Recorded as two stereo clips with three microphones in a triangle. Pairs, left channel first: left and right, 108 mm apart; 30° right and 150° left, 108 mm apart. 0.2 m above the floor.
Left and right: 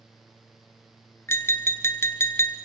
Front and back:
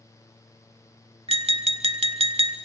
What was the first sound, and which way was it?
Tapping, 155° left.